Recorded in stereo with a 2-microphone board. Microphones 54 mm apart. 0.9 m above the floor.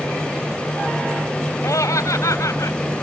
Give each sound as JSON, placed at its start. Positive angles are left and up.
{"t": 1.6, "sound": "laughter", "side_deg": 80}